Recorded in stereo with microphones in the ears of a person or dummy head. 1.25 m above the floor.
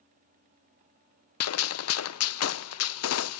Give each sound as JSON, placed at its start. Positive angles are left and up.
{"t": 1.4, "sound": "a gunshot", "side_deg": 70, "distance_m": 0.6}